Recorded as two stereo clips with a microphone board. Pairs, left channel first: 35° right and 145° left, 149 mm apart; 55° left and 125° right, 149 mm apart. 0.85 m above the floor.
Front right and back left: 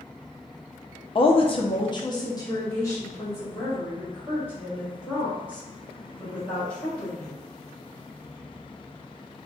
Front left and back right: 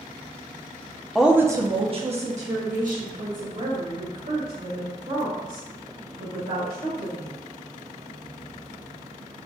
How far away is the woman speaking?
About 0.6 m.